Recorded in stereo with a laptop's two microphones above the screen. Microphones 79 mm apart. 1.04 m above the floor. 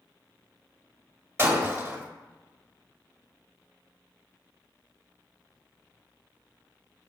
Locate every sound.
1.4 s breaking glass: 35° right (ahead or behind), 1.8 m